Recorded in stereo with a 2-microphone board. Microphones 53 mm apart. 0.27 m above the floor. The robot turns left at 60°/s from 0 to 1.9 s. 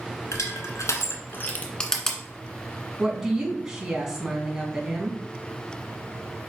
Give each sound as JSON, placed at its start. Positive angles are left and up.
{"t": 0.3, "sound": "crushing", "side_deg": 65, "distance_m": 1.5}
{"t": 3.0, "sound": "a woman speaking", "side_deg": -10, "distance_m": 2.5}